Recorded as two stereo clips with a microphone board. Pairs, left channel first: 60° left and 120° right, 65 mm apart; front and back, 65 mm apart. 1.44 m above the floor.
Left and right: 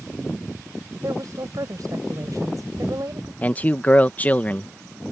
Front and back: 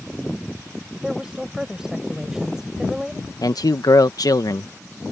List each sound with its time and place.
1.0 s a woman speaking: 100° right
3.4 s a man speaking: 5° right